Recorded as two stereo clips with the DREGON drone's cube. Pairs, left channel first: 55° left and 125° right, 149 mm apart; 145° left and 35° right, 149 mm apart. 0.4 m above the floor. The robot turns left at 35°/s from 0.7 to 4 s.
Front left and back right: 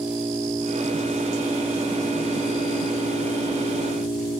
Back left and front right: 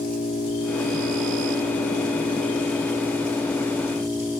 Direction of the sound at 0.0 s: 165° left.